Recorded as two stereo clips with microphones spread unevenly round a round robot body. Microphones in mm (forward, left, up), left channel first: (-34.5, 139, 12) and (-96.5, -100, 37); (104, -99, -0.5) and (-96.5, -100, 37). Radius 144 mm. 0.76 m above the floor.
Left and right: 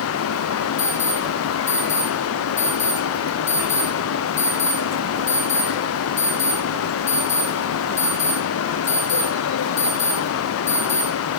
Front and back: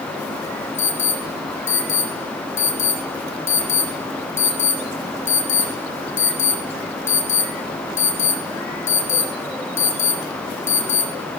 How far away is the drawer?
I don't hear a drawer.